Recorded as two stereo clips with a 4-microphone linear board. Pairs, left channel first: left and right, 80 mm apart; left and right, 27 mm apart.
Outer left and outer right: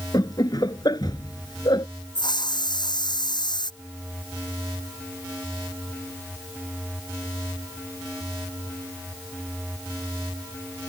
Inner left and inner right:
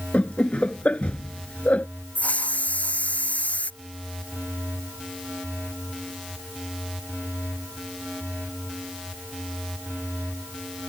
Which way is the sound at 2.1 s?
70° left (ahead or behind).